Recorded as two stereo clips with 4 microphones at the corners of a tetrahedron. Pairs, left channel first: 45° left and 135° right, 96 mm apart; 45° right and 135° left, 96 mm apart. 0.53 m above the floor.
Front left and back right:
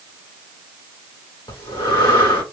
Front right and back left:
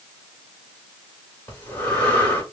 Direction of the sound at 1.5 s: 20° left.